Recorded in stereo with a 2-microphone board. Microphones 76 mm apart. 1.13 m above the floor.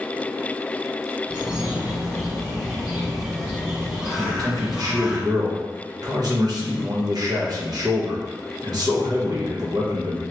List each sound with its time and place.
1.3 s a bird: 15° right (ahead or behind), 1.2 m
4.2 s a man speaking: 60° right (ahead or behind), 1.1 m